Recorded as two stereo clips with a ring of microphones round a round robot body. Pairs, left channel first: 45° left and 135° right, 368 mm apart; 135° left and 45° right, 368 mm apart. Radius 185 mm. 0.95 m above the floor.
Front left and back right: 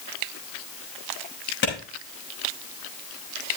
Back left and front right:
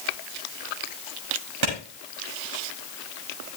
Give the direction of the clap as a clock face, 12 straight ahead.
1 o'clock.